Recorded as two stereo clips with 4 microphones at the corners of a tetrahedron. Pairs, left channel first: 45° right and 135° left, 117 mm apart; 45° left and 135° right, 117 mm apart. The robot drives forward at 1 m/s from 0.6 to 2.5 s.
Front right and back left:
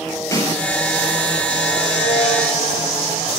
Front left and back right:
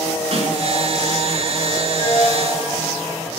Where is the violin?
45° right, 6.5 m; by 3.3 s 50° right, 6 m.